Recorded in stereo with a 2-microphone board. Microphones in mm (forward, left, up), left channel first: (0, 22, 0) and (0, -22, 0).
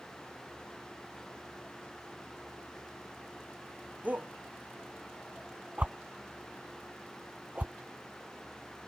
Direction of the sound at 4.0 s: 35° right (ahead or behind).